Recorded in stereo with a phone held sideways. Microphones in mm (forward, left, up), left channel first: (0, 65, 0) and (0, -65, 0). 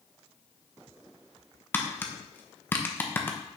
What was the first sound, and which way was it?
Tapping, 15° left (ahead or behind).